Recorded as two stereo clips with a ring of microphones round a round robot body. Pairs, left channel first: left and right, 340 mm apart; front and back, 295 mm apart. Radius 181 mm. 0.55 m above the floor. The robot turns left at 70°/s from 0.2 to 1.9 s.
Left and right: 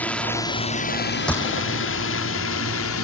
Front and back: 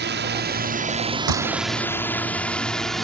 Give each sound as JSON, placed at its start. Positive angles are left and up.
{"t": 0.0, "sound": "a drone", "azimuth_deg": 175}
{"t": 1.3, "sound": "a gunshot", "azimuth_deg": 180}